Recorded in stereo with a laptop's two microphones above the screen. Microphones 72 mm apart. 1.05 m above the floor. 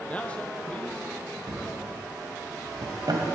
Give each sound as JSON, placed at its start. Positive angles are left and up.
{"t": 0.1, "sound": "a man speaking", "side_deg": 15, "distance_m": 0.5}
{"t": 1.5, "sound": "a drawer", "side_deg": -75, "distance_m": 2.5}